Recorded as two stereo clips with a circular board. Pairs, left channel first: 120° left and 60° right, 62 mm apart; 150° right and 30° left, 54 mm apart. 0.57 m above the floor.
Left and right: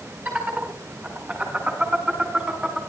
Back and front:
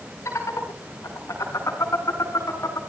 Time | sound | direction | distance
0.2 | laughter | 120° right | 7.5 m